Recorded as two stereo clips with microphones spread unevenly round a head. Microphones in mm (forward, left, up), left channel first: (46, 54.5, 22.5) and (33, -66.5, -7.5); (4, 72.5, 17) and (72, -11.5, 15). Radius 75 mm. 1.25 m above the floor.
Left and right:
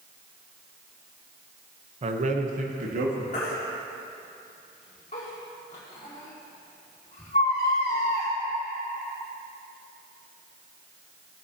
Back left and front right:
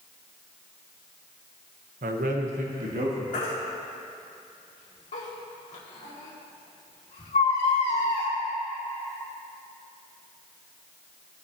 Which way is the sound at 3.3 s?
130° left.